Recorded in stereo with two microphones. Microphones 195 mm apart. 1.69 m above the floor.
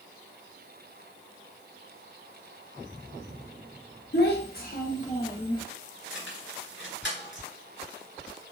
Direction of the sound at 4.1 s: 60° left (ahead or behind).